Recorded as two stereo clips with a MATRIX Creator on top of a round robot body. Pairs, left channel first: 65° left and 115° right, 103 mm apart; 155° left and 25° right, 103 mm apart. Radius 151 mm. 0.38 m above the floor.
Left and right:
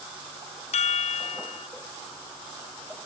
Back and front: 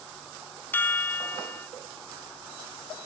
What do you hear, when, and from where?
0.7 s a chime: 85° left